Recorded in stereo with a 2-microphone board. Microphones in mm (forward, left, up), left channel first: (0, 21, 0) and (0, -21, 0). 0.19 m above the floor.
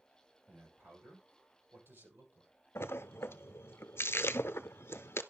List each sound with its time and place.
0.5 s a man speaking: 70° right (ahead or behind), 7 m; by 2.5 s 65° right (ahead or behind), 5.5 m
2.8 s a splash: 80° left, 0.6 m